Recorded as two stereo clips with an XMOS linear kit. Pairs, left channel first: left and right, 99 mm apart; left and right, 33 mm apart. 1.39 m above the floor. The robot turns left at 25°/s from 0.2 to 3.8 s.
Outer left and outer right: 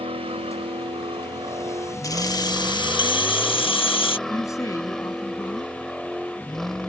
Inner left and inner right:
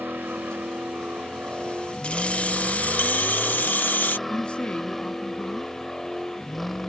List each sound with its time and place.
0.0 s a vehicle: 95° right; by 6.9 s 175° left
2.0 s keys jangling: 140° left; by 4.2 s 95° left
4.3 s a woman speaking: 30° left (ahead or behind)